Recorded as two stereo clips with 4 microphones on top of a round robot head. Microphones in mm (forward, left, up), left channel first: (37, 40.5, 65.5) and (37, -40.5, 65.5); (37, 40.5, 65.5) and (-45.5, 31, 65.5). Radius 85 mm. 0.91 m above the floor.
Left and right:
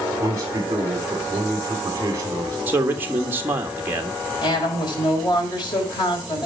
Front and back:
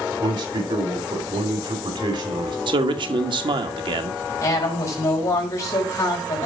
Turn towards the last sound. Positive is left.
turn(degrees=60)